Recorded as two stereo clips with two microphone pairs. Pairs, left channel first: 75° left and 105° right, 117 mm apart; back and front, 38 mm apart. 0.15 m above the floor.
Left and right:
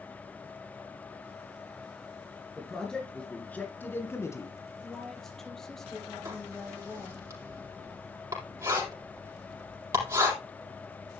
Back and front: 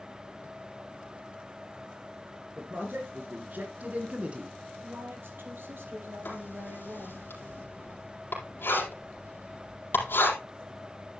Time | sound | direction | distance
2.6 | a man speaking | 10° right | 3 m
4.8 | a woman speaking | 10° right | 4 m
6.2 | writing | 165° right | 4 m